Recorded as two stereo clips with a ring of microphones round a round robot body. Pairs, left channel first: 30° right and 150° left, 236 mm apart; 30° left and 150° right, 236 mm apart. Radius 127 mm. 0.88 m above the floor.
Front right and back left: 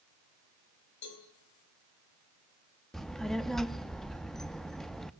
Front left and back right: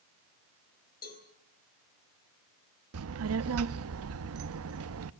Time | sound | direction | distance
1.0 | a cowbell | 25° right | 4 m
2.9 | a child speaking | 120° right | 0.7 m